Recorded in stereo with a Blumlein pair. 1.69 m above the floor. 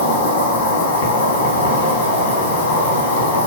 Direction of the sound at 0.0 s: 65° left.